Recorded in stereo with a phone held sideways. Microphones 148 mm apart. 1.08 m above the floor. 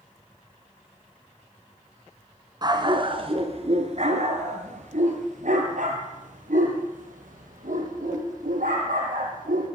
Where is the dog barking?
30° right (ahead or behind), 2.5 m; by 9.7 s 80° right, 10.5 m.